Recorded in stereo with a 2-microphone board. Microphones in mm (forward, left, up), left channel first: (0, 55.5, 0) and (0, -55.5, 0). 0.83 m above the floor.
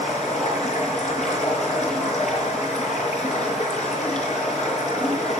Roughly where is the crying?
No crying in this recording.